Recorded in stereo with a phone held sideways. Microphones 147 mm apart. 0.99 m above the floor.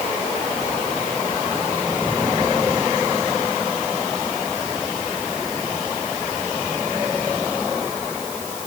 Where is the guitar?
No guitar in this recording.